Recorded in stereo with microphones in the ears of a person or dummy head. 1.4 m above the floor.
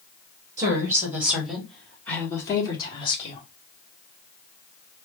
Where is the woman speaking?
20° right (ahead or behind), 1.8 m; by 3.4 s 35° left (ahead or behind), 1.8 m.